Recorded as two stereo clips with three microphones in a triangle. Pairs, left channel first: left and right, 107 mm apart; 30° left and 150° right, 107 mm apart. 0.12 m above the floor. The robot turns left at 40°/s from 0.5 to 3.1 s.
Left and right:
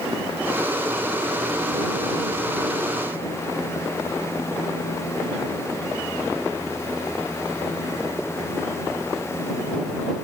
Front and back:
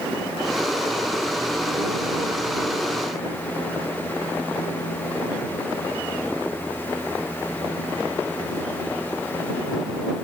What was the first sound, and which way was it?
Only background noise.